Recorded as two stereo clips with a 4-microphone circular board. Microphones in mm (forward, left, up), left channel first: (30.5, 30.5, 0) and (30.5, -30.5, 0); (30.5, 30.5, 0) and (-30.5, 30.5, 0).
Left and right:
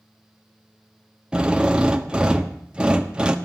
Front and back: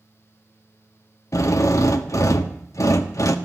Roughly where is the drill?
Ahead.